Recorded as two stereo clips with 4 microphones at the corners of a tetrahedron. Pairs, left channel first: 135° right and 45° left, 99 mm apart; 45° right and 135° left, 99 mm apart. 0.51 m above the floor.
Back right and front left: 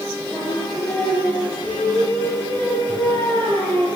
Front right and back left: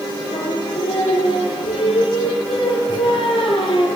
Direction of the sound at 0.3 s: 65° right.